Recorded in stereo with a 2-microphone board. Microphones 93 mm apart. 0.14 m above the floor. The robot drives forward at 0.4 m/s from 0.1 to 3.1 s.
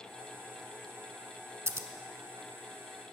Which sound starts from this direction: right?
Scissors, at 1.7 s.